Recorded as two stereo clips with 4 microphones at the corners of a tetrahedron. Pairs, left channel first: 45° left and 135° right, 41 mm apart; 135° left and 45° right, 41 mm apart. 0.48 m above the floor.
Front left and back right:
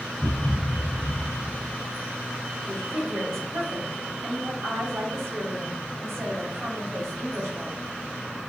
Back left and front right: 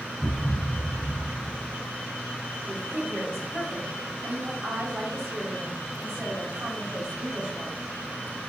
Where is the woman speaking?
120° right, 3 m.